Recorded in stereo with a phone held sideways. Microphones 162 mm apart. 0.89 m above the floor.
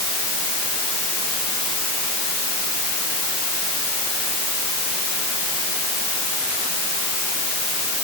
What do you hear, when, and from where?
Only background noise.